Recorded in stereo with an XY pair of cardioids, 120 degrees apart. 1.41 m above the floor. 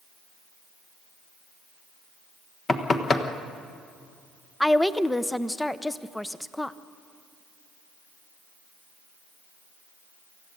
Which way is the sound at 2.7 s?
35° left.